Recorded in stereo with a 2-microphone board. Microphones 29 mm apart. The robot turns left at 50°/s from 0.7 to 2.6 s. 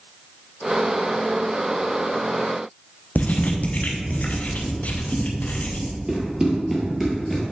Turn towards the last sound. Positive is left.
turn(degrees=5)  # may be behind; listen again after turning